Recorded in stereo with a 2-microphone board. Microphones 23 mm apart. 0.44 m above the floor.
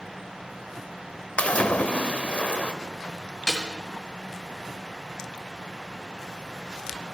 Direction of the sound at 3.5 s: 30° left (ahead or behind).